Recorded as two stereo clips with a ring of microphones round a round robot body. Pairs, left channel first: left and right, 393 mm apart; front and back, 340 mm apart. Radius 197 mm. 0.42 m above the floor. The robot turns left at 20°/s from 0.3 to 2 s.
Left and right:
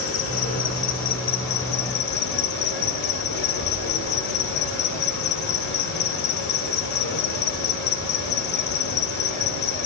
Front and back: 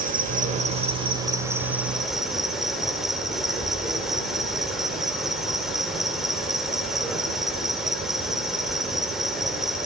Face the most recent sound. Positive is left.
turn(degrees=90)